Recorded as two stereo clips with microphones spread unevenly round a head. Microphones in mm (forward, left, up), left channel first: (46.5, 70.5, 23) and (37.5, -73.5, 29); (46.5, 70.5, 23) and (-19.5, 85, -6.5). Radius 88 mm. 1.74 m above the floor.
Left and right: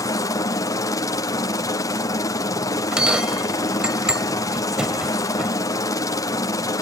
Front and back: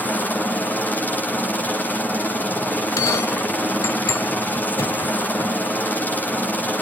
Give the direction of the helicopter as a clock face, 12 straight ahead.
10 o'clock.